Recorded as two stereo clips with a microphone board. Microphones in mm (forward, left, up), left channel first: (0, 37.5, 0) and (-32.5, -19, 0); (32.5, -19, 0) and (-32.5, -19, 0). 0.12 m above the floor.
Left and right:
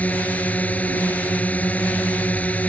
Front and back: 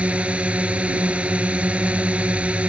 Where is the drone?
115° left.